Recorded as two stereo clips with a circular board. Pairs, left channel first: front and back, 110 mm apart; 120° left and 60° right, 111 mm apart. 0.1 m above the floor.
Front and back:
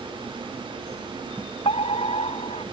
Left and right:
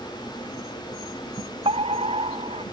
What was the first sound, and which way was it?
A fire alarm, 30° right.